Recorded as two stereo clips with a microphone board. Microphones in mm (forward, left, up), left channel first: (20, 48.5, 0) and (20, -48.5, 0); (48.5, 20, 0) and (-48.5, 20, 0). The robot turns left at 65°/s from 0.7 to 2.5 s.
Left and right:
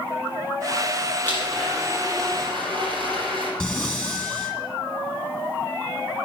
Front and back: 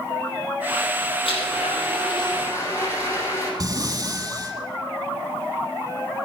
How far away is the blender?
About 5.5 m.